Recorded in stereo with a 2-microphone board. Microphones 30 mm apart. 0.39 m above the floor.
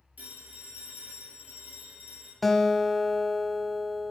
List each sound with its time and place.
0.2 s a phone ringing: 85° right, 5 m
2.4 s a guitar: 5° left (ahead or behind), 0.8 m